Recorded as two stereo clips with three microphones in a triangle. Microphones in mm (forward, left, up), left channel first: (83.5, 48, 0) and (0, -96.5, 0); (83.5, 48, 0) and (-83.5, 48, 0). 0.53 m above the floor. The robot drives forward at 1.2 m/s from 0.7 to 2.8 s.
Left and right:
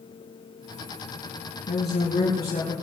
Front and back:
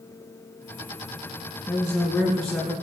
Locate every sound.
1.7 s a woman speaking: 80° left, 5 m; by 2.7 s 95° left, 5 m